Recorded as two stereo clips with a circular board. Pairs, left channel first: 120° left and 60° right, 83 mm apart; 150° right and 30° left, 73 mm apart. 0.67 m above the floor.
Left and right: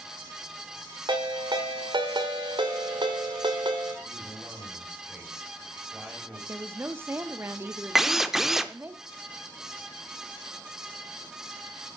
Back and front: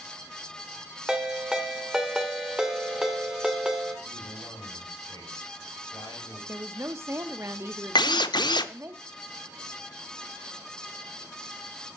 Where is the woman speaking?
10° right, 0.9 m.